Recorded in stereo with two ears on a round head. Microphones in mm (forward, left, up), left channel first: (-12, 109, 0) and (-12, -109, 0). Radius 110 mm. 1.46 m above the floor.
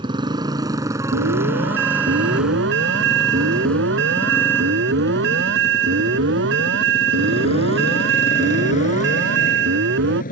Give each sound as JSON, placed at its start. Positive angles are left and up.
{"t": 0.0, "sound": "a motorcycle", "side_deg": -20}
{"t": 1.1, "sound": "an alarm", "side_deg": -50}